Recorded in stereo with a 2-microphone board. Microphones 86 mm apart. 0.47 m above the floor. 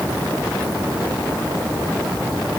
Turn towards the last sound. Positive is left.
No sound to turn to.